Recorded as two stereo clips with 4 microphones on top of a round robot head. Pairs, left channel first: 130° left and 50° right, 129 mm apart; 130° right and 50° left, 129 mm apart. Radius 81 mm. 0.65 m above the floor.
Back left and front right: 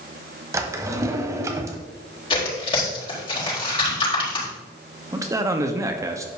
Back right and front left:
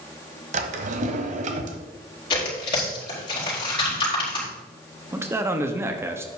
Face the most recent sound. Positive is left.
turn(degrees=-5)